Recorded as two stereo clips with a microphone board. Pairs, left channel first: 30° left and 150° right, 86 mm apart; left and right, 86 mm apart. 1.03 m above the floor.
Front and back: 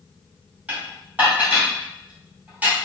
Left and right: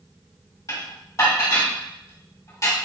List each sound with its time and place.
0.7 s dishes clattering: 140° left, 1.9 m